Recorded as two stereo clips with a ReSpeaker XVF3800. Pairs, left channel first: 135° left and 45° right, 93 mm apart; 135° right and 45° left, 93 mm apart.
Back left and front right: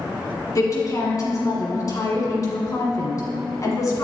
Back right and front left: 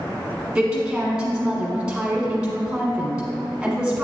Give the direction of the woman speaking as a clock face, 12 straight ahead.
8 o'clock.